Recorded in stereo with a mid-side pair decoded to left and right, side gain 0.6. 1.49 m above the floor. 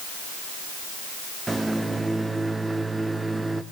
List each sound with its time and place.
1.5 s a microwave: 15° right, 1.1 m